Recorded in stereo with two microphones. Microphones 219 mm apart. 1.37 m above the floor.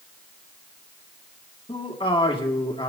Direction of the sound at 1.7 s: 25° left (ahead or behind).